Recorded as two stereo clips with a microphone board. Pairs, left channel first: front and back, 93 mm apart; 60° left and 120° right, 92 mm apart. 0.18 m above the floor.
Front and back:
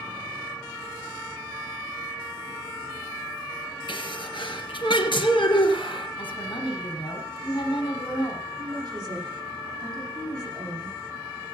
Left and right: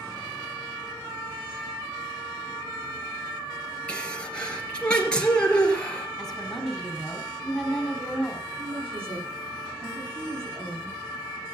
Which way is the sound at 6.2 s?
25° right.